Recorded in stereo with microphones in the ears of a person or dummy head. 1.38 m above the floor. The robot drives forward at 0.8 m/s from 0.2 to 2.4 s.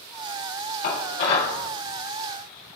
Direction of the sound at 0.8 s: 65° left (ahead or behind).